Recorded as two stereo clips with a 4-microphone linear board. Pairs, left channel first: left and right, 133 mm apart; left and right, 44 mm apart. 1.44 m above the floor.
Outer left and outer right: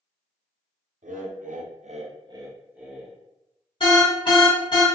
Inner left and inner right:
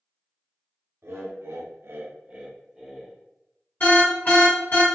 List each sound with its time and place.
1.0 s laughter: 70° right (ahead or behind), 0.7 m; by 3.1 s 5° right (ahead or behind), 0.9 m
3.8 s an alarm: 40° left (ahead or behind), 1.4 m